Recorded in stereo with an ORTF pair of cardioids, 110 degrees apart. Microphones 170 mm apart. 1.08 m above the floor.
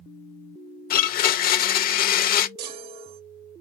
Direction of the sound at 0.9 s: 60° left.